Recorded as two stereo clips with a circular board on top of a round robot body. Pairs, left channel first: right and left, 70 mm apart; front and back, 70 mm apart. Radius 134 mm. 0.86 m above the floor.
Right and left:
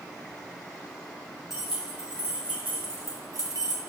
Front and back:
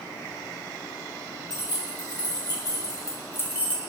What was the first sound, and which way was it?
Keys jangling, 5° left.